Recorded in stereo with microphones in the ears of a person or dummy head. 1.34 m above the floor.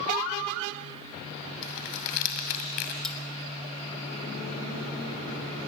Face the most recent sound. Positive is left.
turn(degrees=10)  # may be behind; listen again after turning